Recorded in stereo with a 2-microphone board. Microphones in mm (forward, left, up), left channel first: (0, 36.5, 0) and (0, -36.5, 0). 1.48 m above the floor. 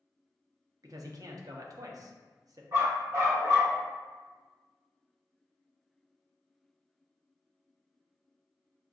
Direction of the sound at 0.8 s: 55° right (ahead or behind).